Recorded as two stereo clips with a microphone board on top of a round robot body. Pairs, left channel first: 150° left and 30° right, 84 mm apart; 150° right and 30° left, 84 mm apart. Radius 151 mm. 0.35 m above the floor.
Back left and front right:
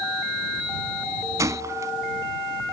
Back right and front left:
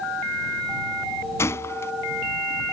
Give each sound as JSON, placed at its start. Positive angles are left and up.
{"t": 1.4, "sound": "a gunshot", "azimuth_deg": -85}